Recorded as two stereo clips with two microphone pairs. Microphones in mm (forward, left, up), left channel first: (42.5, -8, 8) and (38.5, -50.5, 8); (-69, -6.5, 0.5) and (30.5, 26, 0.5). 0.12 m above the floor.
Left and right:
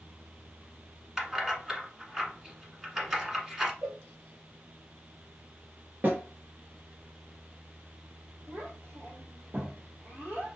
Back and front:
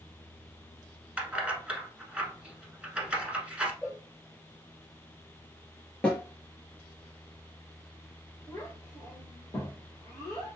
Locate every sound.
1.2 s keys jangling: 45° right, 1.1 m
3.8 s a cowbell: 80° right, 2.5 m
6.0 s a snare drum: 85° right, 1.8 m
8.5 s a child speaking: 95° right, 1.9 m